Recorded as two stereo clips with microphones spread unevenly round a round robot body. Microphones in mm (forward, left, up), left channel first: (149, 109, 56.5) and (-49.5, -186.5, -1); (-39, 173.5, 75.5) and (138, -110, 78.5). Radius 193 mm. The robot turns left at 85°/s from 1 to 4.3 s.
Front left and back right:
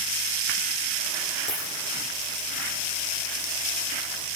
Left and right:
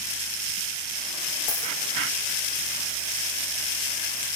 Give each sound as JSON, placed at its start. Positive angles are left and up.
{"t": 1.5, "sound": "a dropped coin", "azimuth_deg": 125, "distance_m": 8.5}